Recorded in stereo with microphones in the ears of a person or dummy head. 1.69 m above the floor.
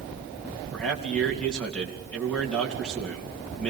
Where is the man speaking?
5° left (ahead or behind), 3.5 m.